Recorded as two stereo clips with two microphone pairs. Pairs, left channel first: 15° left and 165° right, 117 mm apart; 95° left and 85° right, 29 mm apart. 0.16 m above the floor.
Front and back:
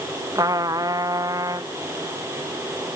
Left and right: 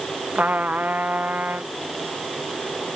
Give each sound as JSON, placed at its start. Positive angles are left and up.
{"t": 0.3, "sound": "a trumpet", "azimuth_deg": -105}